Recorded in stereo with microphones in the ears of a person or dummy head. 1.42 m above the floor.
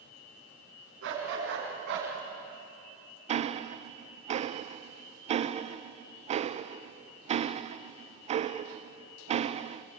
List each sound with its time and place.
1.0 s a dog barking: 65° right (ahead or behind), 6 m
3.3 s ticking: 35° right (ahead or behind), 0.6 m